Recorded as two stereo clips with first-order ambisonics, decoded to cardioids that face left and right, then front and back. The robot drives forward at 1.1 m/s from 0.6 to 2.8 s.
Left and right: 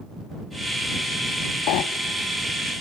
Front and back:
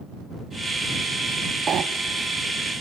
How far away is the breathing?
About 0.8 m.